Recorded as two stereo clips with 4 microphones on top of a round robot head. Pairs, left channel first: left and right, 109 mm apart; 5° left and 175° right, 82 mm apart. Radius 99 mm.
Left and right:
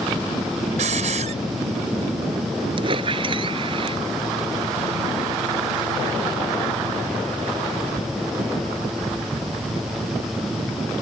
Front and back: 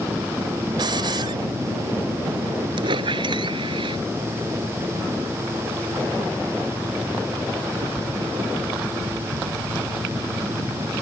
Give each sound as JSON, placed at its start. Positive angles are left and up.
{"t": 0.8, "sound": "a hiss", "azimuth_deg": -125}
{"t": 2.8, "sound": "a squeak", "azimuth_deg": -140}